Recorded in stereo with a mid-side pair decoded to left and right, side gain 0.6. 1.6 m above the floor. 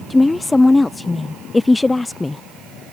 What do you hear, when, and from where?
0.1 s a woman speaking: 15° left